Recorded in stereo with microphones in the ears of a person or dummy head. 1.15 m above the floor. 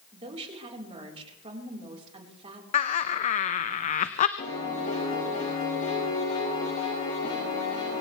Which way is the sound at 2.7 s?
40° left (ahead or behind).